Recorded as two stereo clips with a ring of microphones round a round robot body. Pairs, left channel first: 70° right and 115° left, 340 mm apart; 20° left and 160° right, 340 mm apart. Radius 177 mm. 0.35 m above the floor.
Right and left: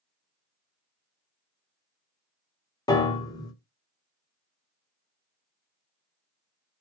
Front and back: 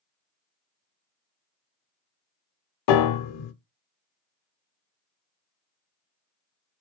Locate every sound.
2.9 s a piano: 10° left, 0.6 m